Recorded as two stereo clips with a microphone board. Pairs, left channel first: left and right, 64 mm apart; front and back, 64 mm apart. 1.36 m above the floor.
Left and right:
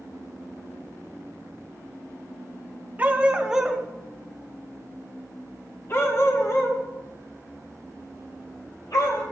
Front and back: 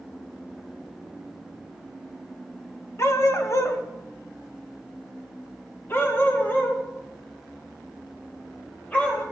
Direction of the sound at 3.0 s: 30° right.